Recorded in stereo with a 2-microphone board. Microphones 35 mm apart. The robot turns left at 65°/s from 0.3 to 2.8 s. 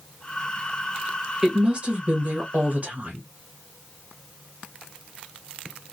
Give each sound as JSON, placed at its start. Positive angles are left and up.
{"t": 1.4, "sound": "a woman speaking", "azimuth_deg": -30, "distance_m": 1.2}